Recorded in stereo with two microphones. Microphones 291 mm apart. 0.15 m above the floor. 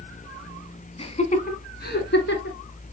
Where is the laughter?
20° left (ahead or behind), 1.1 m; by 2.6 s 40° left (ahead or behind), 1.6 m.